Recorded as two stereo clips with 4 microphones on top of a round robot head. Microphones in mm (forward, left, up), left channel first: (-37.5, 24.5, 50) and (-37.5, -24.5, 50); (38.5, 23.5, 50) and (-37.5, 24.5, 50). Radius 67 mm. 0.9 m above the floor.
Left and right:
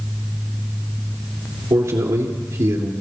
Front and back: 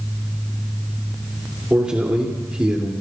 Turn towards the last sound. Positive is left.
turn(degrees=-100)